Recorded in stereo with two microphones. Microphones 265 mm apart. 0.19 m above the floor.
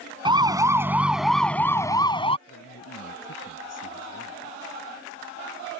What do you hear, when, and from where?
0.2 s a siren: 15° right (ahead or behind); by 2.4 s 20° left (ahead or behind)
2.5 s a man speaking: 70° left (ahead or behind)